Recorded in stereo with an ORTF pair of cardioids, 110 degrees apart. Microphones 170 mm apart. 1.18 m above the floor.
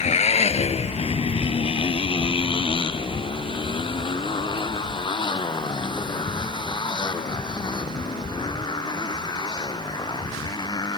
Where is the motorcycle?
40° left; by 11.0 s 25° left.